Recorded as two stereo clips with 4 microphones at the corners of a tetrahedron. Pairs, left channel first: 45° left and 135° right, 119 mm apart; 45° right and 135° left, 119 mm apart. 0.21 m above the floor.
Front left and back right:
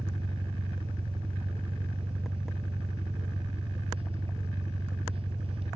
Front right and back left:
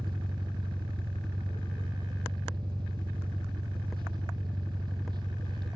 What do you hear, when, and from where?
0.0 s an engine running: 175° right, 1.1 m